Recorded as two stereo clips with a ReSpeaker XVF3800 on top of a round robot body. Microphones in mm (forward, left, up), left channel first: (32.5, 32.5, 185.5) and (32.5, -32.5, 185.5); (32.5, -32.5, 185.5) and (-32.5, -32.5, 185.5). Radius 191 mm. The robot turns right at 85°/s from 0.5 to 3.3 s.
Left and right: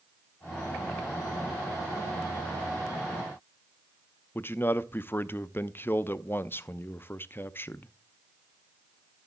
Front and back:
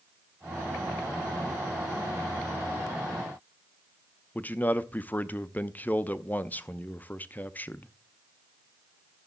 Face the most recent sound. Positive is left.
turn(degrees=50)